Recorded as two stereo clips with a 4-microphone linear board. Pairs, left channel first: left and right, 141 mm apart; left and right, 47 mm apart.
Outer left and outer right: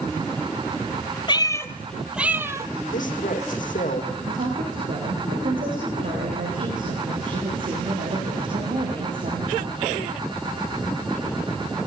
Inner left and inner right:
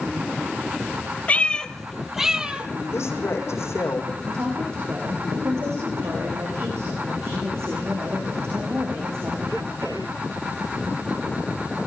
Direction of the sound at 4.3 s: 75° right (ahead or behind).